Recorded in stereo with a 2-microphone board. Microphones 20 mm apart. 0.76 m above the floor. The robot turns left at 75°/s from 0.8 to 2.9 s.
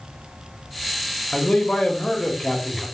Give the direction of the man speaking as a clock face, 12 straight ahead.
8 o'clock.